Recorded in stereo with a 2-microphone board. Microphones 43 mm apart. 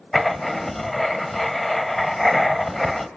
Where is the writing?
5° left (ahead or behind), 1.1 m.